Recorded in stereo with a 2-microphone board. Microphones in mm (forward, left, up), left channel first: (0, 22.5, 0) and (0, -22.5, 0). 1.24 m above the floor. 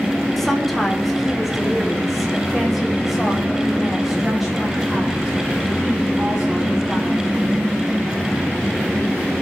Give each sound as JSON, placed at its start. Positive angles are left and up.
{"t": 0.4, "sound": "a woman speaking", "side_deg": 5, "distance_m": 3.0}